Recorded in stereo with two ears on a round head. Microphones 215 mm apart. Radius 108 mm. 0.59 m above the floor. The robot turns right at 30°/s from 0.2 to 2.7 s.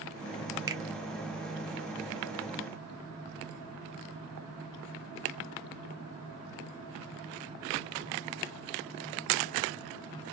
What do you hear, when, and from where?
0.7 s a finger snap: 15° right (ahead or behind), 0.6 m